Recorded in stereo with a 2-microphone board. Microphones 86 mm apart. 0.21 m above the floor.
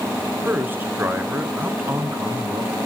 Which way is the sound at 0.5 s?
25° right (ahead or behind).